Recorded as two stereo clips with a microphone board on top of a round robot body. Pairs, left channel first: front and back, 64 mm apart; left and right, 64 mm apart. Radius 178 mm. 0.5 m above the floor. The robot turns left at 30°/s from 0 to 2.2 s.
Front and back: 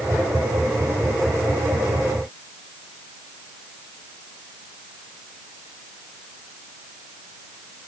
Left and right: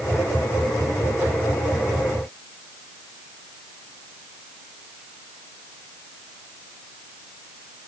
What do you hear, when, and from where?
Only background noise.